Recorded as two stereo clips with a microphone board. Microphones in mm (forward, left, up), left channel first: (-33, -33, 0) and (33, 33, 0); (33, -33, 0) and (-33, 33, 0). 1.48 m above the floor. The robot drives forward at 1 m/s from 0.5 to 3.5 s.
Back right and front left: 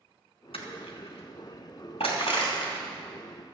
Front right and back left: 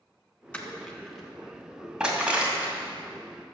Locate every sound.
0.5 s crushing: 120° right, 2 m; by 2.9 s 150° right, 4 m